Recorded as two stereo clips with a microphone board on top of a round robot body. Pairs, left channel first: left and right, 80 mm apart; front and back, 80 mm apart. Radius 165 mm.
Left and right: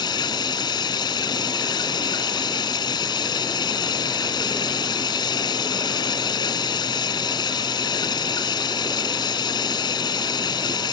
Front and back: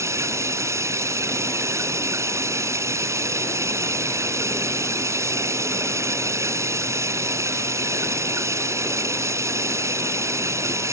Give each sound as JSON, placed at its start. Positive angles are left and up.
{"t": 0.0, "sound": "running water", "azimuth_deg": 125}